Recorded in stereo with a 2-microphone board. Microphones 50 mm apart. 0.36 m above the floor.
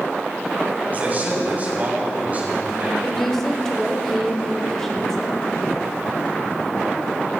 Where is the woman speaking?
10° left (ahead or behind), 1.0 m.